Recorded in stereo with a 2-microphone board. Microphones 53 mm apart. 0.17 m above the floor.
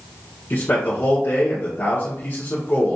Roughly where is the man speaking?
Left.